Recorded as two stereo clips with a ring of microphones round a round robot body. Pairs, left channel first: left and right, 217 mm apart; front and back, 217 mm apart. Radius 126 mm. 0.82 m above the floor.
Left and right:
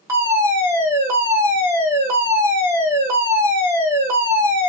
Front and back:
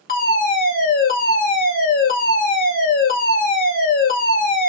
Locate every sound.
0.1 s a fire alarm: 20° right, 2.5 m